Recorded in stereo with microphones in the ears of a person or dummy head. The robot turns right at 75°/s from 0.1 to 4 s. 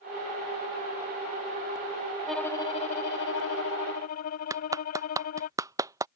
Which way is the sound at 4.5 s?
15° right (ahead or behind).